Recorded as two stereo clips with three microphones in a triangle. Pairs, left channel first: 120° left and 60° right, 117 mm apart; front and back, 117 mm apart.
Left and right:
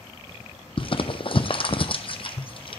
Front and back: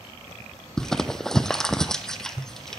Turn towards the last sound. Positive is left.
turn(degrees=85)